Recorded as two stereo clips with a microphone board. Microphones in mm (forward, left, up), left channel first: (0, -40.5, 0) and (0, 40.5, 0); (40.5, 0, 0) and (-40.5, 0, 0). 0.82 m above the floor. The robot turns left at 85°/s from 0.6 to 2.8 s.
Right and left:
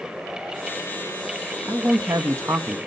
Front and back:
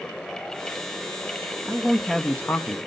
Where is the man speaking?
125° left, 0.7 m; by 2.8 s 30° left, 0.7 m.